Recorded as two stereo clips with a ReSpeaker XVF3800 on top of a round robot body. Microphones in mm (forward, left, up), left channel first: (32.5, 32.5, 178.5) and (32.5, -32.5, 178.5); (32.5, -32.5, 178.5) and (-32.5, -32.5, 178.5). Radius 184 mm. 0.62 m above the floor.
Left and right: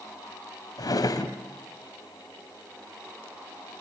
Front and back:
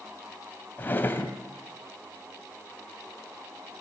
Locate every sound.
0.8 s a drawer: 65° left, 1.5 m